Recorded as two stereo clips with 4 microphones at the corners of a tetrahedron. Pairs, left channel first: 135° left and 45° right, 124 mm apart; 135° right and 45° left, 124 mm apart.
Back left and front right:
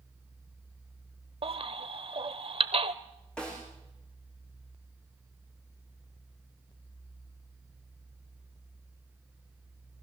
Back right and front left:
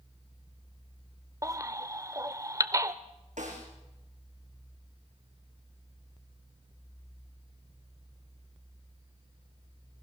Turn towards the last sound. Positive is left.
turn(degrees=50)